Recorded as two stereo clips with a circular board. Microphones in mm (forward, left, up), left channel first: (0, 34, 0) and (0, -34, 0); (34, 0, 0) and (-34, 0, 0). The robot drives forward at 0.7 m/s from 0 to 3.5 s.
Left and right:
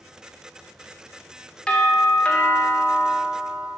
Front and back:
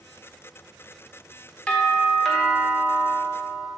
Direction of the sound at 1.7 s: 35° left.